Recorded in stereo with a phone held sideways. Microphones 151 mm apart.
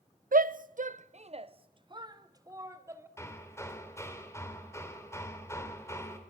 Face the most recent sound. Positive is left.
turn(degrees=20)  # may be behind; listen again after turning